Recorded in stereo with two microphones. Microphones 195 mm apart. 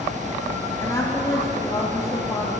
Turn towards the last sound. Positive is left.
turn(degrees=20)  # may be behind; listen again after turning